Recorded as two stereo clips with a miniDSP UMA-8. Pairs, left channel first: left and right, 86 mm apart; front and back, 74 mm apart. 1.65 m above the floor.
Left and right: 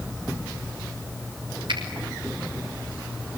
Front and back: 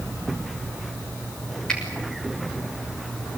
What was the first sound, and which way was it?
A finger snap, 80° right.